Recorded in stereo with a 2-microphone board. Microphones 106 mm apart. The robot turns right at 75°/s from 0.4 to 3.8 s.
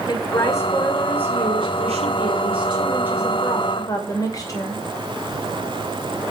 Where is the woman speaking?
140° left, 2.5 m; by 4.8 s 35° left, 2.5 m.